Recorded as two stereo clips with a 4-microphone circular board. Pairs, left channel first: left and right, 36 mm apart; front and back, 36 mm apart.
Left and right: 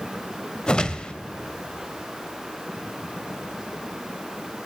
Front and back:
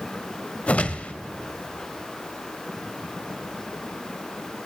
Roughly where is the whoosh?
Ahead left.